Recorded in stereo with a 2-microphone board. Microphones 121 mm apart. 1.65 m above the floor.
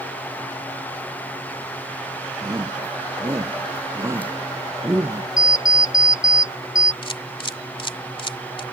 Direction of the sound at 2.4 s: 30° right (ahead or behind).